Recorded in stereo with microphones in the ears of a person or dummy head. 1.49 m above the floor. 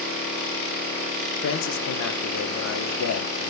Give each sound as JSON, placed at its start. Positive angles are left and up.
{"t": 1.4, "sound": "a man speaking", "side_deg": 75, "distance_m": 1.7}